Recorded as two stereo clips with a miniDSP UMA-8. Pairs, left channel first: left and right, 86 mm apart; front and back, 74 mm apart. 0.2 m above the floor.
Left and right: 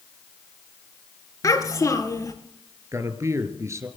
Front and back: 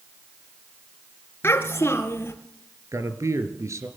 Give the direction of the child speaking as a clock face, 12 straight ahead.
10 o'clock.